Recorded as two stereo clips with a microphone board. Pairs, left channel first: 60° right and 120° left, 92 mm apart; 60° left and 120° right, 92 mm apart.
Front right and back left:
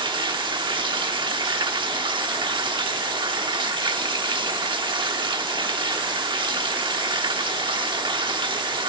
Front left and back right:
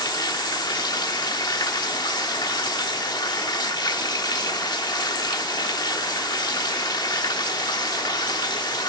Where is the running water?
95° left, 1.1 m.